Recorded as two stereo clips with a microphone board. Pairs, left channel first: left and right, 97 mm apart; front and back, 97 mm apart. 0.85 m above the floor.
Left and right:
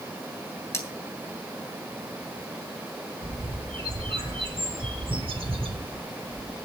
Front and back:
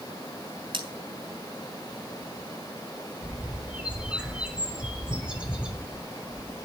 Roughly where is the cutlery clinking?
Behind left.